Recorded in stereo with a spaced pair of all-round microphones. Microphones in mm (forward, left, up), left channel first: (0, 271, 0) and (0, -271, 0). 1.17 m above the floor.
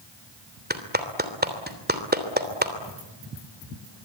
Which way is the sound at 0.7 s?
15° right (ahead or behind).